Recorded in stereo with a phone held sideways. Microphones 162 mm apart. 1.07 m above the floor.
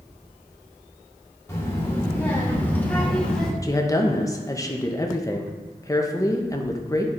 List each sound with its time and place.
1.5 s a child speaking: 15° left (ahead or behind), 2.5 m; by 3.5 s 5° left (ahead or behind), 1.4 m
3.6 s a woman speaking: 20° left (ahead or behind), 0.9 m